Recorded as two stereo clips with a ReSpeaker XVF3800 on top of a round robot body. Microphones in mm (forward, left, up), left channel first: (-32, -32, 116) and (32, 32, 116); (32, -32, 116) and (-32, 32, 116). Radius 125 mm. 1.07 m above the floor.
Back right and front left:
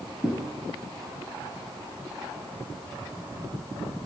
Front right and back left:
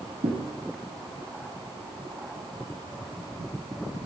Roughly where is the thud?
Behind left.